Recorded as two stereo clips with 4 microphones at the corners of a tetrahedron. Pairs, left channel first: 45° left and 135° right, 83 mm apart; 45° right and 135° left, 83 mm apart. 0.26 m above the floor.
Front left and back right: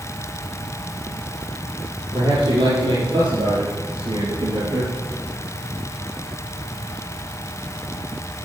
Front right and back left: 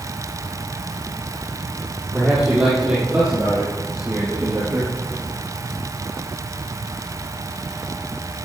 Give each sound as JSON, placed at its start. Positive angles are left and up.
{"t": 2.1, "sound": "a man speaking", "azimuth_deg": -145, "distance_m": 6.5}